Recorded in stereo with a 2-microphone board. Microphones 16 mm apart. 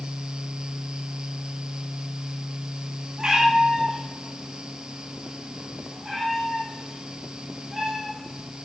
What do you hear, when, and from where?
3.2 s a cat meowing: 50° right (ahead or behind), 3.5 m; by 8.4 s 20° right (ahead or behind), 6.5 m